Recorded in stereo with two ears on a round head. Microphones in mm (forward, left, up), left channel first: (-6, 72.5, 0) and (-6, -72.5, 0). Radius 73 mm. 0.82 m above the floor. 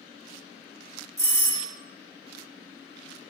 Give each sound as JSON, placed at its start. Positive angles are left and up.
{"t": 1.2, "sound": "a doorbell", "side_deg": -20, "distance_m": 1.6}